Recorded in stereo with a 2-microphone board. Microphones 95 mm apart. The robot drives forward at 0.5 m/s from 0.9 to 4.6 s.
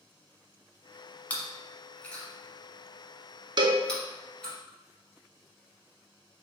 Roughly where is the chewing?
Centre.